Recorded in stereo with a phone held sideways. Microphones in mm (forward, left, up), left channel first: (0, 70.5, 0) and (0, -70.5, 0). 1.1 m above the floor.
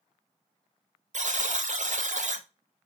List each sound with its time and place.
1.1 s a buzzer: 60° right (ahead or behind), 0.6 m